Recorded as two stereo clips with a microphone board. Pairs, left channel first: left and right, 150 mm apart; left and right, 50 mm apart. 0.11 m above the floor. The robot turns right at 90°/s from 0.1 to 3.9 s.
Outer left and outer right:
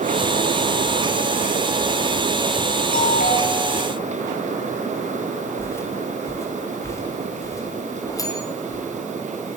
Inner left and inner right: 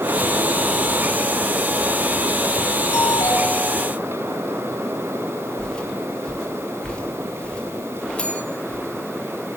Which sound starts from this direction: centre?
Footsteps, at 5.6 s.